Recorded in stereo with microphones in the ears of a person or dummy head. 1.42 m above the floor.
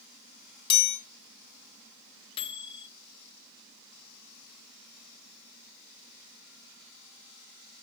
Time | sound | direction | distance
0.7 | a chime | 30° left (ahead or behind) | 1.6 m
2.4 | a microwave | 30° left (ahead or behind) | 0.8 m